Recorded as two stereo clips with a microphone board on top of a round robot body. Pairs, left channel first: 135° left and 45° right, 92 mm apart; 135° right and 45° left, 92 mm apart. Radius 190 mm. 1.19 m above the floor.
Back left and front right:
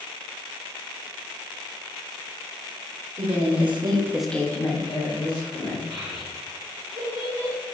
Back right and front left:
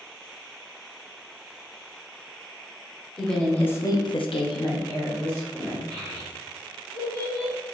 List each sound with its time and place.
3.2 s a woman speaking: 50° right, 1.2 m; by 5.8 s 160° left, 2.0 m
5.9 s a child speaking: 90° right, 0.7 m